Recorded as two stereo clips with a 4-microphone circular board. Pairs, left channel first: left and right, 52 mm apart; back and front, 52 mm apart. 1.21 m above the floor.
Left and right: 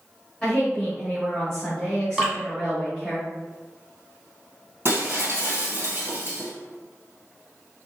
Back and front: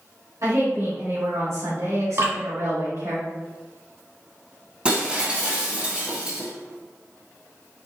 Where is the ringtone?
I don't hear a ringtone.